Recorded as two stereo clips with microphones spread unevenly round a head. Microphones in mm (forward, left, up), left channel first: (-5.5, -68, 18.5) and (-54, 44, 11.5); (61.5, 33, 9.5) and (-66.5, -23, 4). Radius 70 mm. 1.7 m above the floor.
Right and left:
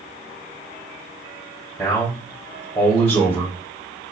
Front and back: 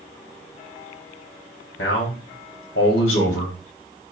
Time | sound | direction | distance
1.8 | a man speaking | 5° right | 1.0 m